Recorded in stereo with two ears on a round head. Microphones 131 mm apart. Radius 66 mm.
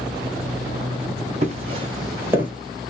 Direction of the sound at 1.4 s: 45° right (ahead or behind).